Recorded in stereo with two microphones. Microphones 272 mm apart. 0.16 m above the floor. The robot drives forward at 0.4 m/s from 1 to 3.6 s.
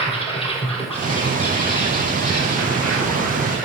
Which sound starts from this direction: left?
An insect, at 0.0 s.